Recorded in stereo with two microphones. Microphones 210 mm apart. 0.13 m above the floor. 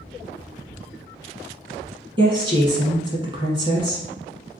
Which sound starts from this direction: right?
A woman speaking, at 2.2 s.